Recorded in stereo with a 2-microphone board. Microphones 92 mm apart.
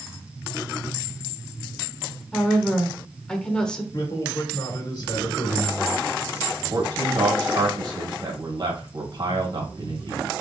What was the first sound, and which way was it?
A woman speaking, 10° left (ahead or behind).